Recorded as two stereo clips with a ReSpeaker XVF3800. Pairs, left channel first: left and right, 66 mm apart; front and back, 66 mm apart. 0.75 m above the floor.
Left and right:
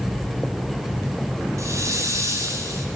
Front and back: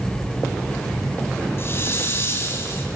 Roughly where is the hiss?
Ahead right.